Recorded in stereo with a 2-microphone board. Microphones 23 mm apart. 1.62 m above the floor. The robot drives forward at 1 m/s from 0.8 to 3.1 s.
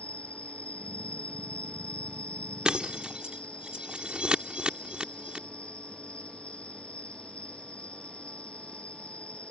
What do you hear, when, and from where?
0.0 s an insect: 75° left (ahead or behind); by 9.5 s 65° left (ahead or behind)
2.6 s breaking glass: 50° right (ahead or behind); by 5.5 s 60° right (ahead or behind)